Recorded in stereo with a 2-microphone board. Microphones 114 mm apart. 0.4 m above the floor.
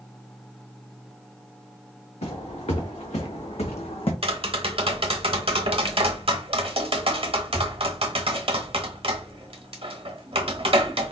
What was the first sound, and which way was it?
Footsteps, 80° left.